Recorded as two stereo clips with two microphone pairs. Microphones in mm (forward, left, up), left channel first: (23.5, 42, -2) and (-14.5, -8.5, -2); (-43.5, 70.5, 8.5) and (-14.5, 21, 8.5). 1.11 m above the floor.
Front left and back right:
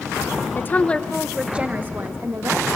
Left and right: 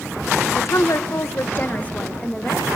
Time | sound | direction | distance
0.6 | a woman speaking | 100° left | 1.1 m